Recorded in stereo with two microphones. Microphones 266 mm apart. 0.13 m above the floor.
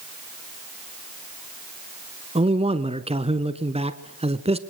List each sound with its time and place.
2.4 s a man speaking: 25° right (ahead or behind), 1.3 m